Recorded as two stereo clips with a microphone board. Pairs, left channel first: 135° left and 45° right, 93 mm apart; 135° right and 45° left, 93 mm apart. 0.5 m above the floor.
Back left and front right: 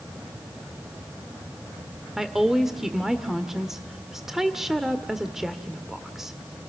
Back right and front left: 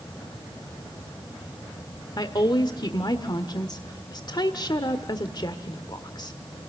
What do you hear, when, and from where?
2.2 s a woman speaking: 130° right, 1.5 m